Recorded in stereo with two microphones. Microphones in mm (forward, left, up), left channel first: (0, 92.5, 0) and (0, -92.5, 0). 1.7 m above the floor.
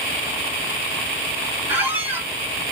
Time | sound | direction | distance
1.7 | a squeak | 10° right (ahead or behind) | 0.7 m